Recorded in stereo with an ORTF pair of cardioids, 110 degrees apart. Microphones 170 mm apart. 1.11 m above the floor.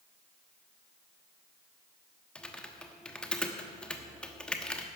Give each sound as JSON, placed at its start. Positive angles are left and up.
{"t": 2.4, "sound": "typing on a keyboard", "azimuth_deg": 5, "distance_m": 1.1}